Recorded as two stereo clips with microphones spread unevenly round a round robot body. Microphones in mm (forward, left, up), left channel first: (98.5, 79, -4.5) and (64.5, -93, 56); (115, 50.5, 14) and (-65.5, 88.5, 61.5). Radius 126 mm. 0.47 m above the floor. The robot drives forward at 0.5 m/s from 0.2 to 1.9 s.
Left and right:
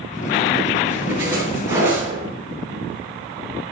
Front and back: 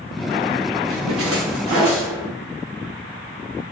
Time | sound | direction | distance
0.9 | a splash | 175° right | 6.5 m